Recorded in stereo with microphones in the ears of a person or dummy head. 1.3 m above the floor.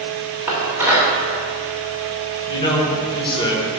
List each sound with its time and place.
0.5 s dishes clattering: 15° right (ahead or behind), 2.5 m
2.5 s a man speaking: 30° left (ahead or behind), 1.8 m